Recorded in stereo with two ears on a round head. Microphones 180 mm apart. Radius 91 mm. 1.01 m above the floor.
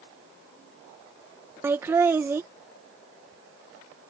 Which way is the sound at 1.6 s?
10° right (ahead or behind).